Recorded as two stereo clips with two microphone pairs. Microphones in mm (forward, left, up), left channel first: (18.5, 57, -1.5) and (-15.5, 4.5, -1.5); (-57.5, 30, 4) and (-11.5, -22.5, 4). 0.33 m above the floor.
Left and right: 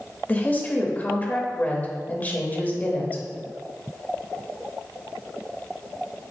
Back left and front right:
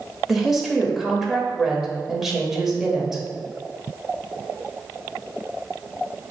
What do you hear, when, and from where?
0.3 s a woman speaking: 40° left, 0.9 m